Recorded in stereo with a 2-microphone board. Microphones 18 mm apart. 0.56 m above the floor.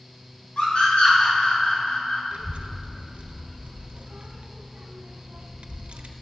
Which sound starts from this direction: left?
A scream, at 0.6 s.